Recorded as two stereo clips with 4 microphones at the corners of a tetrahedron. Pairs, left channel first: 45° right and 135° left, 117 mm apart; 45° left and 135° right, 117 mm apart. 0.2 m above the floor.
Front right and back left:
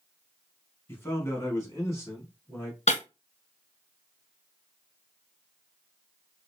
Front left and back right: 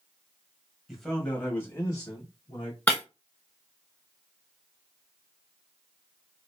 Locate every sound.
0.9 s a man speaking: 50° right, 1.0 m; by 2.8 s 15° left, 1.5 m
2.9 s breaking glass: 30° right, 1.5 m